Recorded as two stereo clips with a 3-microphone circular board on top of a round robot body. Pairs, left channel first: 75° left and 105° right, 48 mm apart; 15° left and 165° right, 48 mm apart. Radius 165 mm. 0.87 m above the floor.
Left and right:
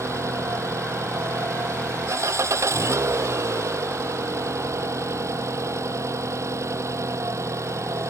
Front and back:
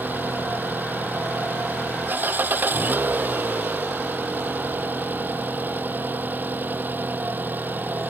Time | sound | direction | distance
0.0 | an engine running | 115° right | ?